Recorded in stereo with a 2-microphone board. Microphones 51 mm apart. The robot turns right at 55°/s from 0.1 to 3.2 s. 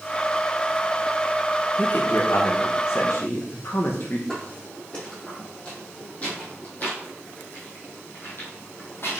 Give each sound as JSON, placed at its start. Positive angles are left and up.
{"t": 1.8, "sound": "a man speaking", "azimuth_deg": 40, "distance_m": 1.3}
{"t": 4.3, "sound": "footsteps", "side_deg": 15, "distance_m": 4.5}